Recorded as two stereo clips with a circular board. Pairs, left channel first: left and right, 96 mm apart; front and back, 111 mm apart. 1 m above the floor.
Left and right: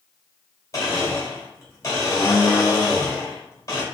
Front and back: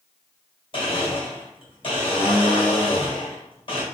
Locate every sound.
0.7 s a blender: 35° left, 1.5 m